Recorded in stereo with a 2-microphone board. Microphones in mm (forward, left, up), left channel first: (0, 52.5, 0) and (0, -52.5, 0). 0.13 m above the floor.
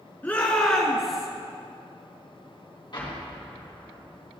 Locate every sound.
0.2 s a shout: 15° left (ahead or behind), 1.3 m; by 1.3 s 5° right (ahead or behind), 1.4 m
2.9 s an explosion: 45° left (ahead or behind), 3.5 m